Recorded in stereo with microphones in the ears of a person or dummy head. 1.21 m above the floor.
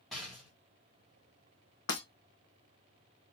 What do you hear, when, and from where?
0.1 s a rattle: centre (ahead or behind), 1.3 m
1.9 s breaking glass: 45° left (ahead or behind), 2 m